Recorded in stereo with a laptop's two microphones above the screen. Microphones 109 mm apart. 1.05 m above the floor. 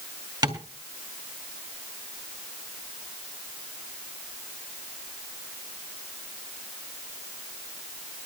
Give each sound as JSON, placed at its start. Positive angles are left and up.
{"t": 0.4, "sound": "tapping", "side_deg": -40, "distance_m": 2.0}